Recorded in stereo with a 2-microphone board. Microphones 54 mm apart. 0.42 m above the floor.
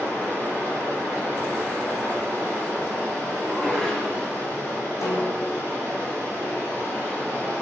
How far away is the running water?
About 2.5 m.